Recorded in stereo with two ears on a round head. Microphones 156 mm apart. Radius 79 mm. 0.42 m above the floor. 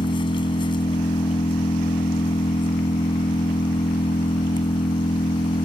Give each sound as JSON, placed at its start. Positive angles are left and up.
{"t": 0.0, "sound": "an engine running", "side_deg": 30}